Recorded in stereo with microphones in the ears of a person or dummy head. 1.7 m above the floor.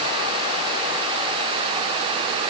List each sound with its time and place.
Only background noise.